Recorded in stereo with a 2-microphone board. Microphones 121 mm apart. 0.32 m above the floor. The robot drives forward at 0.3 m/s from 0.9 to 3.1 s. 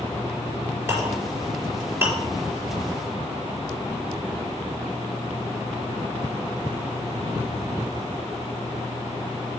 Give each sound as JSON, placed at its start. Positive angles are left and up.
{"t": 0.9, "sound": "a clink", "side_deg": -20, "distance_m": 5.0}